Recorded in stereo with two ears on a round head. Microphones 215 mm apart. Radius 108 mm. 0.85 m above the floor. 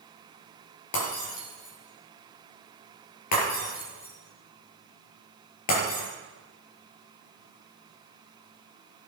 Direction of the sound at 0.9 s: 80° left.